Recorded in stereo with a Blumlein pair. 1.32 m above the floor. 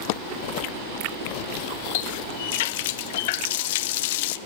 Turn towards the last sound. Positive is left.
turn(degrees=50)